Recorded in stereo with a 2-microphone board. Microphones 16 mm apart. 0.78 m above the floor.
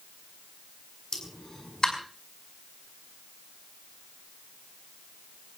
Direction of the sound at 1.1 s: 50° left (ahead or behind).